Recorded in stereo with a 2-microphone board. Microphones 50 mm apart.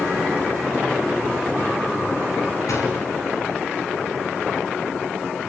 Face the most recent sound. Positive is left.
turn(degrees=80)